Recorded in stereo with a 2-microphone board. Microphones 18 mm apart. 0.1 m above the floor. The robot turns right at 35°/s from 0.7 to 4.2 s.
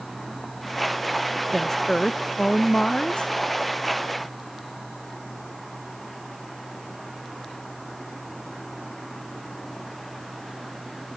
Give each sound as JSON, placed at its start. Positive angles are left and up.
{"t": 1.5, "sound": "a woman speaking", "azimuth_deg": 15}